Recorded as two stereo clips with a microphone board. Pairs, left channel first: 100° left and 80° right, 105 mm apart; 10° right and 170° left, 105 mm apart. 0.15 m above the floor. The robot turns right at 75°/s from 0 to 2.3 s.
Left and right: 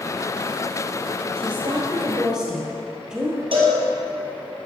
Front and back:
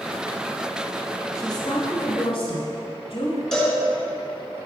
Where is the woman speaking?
60° right, 1.6 m; by 3.4 s 10° left, 1.6 m.